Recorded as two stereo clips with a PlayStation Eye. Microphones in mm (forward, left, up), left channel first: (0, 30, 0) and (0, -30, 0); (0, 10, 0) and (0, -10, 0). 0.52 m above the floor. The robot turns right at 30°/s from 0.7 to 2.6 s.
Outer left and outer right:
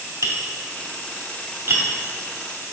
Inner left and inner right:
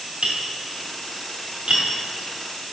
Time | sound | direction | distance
0.2 | tapping | 70° right (ahead or behind) | 2.5 m